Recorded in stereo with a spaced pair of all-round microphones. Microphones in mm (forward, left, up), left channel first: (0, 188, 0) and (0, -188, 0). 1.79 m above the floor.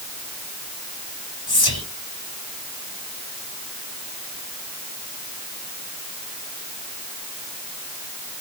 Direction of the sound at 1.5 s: 70° left (ahead or behind).